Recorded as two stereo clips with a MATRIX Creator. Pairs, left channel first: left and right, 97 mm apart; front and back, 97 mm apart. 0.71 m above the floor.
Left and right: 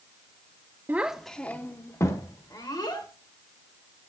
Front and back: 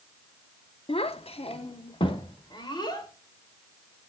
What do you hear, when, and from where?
0.9 s a child speaking: 20° right, 0.6 m; by 3.1 s 45° left, 1.6 m